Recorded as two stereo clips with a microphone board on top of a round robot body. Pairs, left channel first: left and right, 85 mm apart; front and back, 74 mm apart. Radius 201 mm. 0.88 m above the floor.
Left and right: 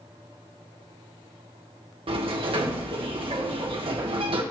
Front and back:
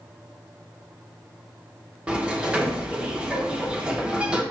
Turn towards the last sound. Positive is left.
turn(degrees=-100)